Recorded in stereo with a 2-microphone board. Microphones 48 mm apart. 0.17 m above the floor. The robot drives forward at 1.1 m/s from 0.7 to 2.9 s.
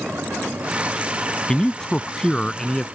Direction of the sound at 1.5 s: 15° left (ahead or behind).